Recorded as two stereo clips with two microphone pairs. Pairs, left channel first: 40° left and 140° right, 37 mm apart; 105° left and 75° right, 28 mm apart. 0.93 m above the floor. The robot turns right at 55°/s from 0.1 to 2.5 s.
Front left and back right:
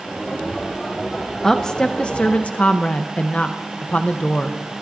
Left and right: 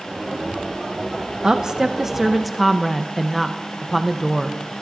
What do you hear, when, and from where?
1.4 s a woman speaking: 40° right, 0.5 m; by 4.6 s 20° left, 0.5 m